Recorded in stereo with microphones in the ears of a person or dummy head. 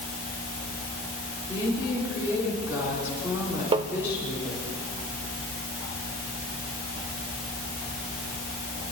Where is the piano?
I don't hear a piano.